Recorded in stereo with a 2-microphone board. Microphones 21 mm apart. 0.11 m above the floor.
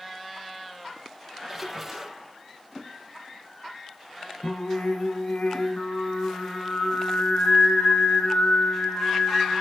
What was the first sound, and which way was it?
A splash, 15° right (ahead or behind).